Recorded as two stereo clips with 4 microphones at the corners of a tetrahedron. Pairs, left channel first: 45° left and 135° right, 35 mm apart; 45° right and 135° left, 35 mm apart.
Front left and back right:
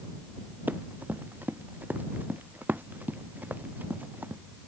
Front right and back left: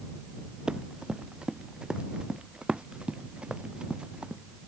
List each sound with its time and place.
0.7 s running footsteps: 160° right; by 4.4 s 165° right